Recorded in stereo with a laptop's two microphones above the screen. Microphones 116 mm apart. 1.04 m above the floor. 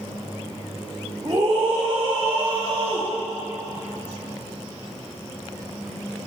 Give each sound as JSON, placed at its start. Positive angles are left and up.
{"t": 1.2, "sound": "a scream", "side_deg": -35, "distance_m": 1.7}